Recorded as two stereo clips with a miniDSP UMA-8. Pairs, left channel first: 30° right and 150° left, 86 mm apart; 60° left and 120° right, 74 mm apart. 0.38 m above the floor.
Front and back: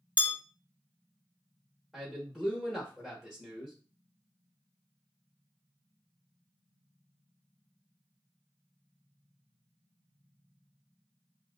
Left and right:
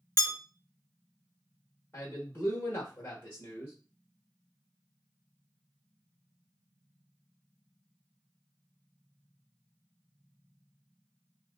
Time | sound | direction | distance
0.2 | a bell | 65° right | 0.7 m
1.9 | a man speaking | 60° left | 0.9 m